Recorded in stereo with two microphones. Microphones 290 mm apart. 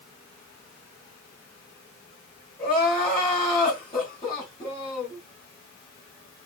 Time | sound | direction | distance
2.6 | crying | 30° left (ahead or behind) | 1.6 m